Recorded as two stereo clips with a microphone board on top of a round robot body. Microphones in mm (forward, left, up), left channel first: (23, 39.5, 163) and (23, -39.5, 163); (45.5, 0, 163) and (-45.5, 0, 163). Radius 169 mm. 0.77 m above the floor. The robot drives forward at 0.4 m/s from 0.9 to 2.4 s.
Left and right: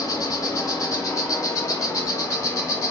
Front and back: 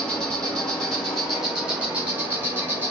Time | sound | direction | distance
0.0 | an insect | 80° left | 1.3 m